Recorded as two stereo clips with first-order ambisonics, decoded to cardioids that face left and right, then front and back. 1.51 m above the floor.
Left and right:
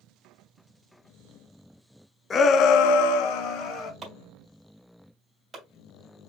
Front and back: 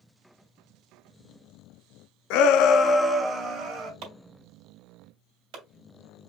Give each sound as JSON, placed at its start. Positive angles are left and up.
{"t": 2.3, "sound": "a shout", "azimuth_deg": 20, "distance_m": 0.7}
{"t": 4.0, "sound": "chopping", "azimuth_deg": -165, "distance_m": 2.0}